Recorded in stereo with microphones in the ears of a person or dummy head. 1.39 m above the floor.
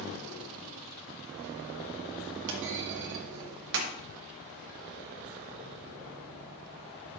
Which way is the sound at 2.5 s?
60° right (ahead or behind).